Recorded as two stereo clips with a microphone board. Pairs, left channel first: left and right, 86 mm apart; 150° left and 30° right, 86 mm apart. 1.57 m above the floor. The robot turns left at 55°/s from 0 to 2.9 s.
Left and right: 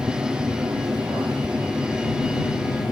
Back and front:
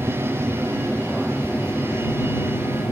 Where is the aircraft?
40° right; by 2.9 s 130° left.